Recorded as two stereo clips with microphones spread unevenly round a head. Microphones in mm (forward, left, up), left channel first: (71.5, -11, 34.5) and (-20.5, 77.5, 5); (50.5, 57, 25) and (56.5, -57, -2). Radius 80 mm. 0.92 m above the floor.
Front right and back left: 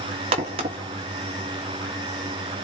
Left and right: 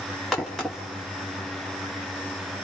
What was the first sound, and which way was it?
A crack, straight behind.